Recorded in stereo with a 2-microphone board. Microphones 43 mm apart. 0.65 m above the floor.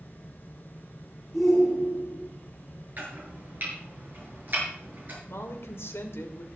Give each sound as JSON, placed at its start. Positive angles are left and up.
{"t": 1.3, "sound": "a shout", "side_deg": 10, "distance_m": 6.5}
{"t": 3.0, "sound": "chopping", "side_deg": -45, "distance_m": 7.0}
{"t": 5.2, "sound": "a woman speaking", "side_deg": 70, "distance_m": 2.0}